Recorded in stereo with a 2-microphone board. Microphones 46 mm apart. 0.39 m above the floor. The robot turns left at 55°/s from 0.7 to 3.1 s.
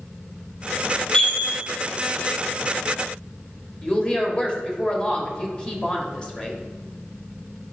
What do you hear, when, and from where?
1.1 s a chime: 25° left (ahead or behind), 1.7 m; by 1.5 s 40° left (ahead or behind), 1.7 m
3.8 s a woman speaking: 20° left (ahead or behind), 1.2 m